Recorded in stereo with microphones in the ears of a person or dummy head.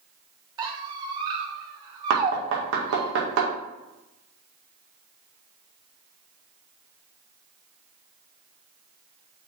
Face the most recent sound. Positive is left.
turn(degrees=-75)  # may be behind; listen again after turning